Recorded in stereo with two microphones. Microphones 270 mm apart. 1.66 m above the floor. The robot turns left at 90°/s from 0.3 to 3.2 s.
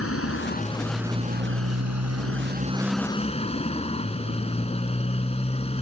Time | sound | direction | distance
0.0 | a motorcycle | 60° left | ?